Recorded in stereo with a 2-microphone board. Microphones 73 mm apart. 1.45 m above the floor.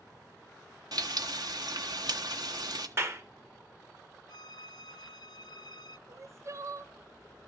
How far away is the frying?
About 1.3 m.